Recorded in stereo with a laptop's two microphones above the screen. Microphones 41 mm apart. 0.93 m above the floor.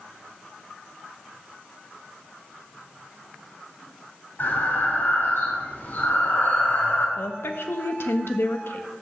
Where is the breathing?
60° left (ahead or behind), 3.5 m.